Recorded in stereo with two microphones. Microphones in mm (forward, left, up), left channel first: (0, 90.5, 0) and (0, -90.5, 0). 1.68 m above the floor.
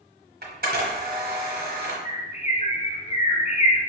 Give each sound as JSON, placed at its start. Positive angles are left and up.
{"t": 0.4, "sound": "a camera shutter", "side_deg": -55, "distance_m": 1.2}
{"t": 2.0, "sound": "a bird", "side_deg": 35, "distance_m": 0.6}